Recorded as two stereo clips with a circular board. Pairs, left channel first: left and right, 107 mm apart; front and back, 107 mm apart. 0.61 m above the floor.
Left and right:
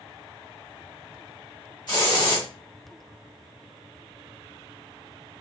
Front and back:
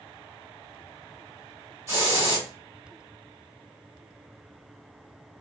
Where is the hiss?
120° left, 1.3 m.